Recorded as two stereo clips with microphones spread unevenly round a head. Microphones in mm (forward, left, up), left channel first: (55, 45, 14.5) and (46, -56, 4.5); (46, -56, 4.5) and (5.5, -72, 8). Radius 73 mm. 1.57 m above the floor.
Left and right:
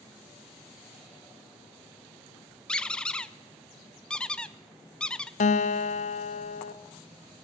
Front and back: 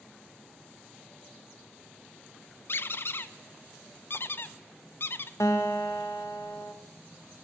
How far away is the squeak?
About 0.5 m.